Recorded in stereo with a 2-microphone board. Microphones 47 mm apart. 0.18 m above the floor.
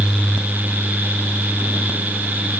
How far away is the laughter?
No laughter in this recording.